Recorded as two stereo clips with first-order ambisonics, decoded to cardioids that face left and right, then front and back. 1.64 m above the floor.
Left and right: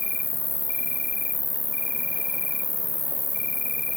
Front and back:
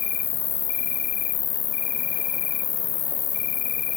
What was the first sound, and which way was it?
An insect, 15° left.